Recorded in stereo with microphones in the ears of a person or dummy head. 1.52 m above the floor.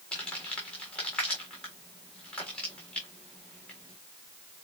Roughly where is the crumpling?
Centre.